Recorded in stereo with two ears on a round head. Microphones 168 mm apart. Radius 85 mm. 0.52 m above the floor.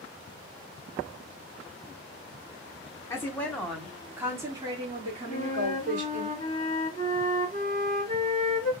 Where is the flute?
25° left (ahead or behind), 2 m.